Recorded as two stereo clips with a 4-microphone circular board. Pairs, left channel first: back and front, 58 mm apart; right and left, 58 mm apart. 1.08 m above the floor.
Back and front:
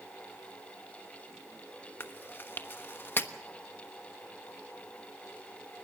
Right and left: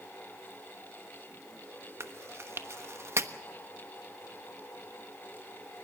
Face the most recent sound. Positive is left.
turn(degrees=130)